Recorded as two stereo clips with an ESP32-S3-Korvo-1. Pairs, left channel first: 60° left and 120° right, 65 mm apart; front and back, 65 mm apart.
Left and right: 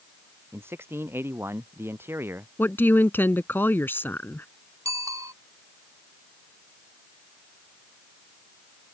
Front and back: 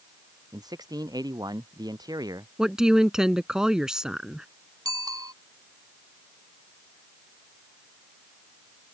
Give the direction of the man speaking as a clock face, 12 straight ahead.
6 o'clock.